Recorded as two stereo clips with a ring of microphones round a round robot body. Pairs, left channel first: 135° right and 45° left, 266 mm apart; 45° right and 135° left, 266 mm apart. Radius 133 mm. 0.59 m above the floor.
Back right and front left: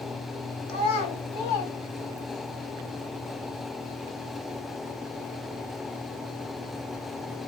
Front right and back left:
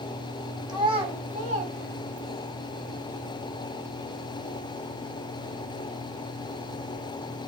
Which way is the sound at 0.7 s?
150° right.